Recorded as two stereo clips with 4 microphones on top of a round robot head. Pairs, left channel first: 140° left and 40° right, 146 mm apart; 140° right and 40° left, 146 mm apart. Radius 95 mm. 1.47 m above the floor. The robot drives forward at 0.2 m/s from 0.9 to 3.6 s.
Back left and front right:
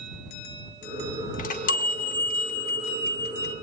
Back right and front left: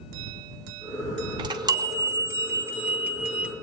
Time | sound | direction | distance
1.4 | a chime | 105° left | 1.0 m